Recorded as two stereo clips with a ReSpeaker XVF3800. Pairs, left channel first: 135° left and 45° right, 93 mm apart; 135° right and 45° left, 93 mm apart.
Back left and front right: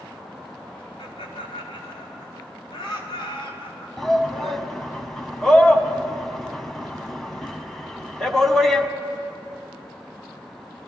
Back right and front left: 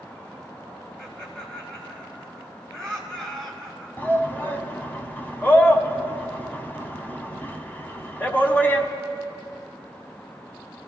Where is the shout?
145° right, 1.0 m.